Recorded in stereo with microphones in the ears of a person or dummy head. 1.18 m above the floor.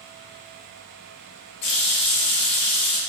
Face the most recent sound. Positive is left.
turn(degrees=30)  # may be behind; listen again after turning